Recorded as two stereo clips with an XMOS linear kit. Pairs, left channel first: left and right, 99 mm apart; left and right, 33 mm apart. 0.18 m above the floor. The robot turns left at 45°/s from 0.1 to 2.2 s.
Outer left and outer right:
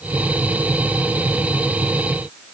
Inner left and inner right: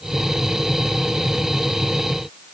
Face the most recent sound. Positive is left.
No sound to turn to.